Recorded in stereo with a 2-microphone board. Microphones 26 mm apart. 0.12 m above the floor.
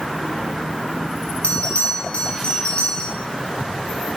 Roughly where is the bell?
Left.